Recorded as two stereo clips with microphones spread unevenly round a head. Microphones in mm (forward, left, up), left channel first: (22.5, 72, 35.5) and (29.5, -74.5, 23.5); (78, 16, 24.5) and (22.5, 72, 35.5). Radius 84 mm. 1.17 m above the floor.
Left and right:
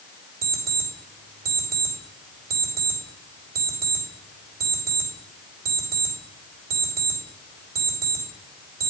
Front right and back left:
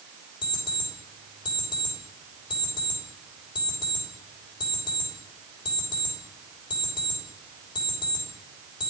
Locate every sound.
0.4 s an alarm clock: 65° right, 2.5 m